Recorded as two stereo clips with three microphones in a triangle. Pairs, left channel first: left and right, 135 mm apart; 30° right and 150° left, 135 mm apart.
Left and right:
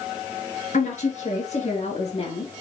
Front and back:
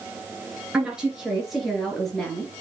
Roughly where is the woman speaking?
Left.